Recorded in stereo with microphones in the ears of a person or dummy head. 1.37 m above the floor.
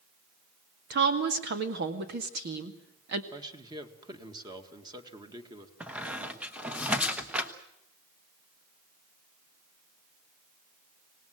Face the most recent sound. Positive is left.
turn(degrees=-5)  # may be behind; listen again after turning